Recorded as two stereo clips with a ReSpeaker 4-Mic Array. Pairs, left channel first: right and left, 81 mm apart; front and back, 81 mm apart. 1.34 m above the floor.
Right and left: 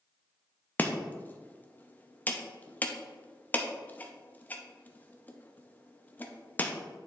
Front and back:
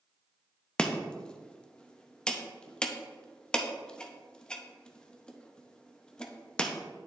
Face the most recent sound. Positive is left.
turn(degrees=-60)